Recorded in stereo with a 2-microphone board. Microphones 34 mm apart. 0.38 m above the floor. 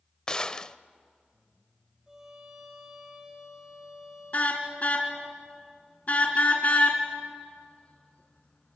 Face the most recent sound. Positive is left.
turn(degrees=45)  # may be behind; listen again after turning